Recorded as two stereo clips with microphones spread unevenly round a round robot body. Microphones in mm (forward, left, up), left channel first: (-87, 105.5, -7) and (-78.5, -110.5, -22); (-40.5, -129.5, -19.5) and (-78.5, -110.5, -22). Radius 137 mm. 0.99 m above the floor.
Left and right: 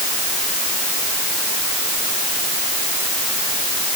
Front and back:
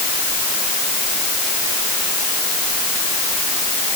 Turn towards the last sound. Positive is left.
No sound to turn to.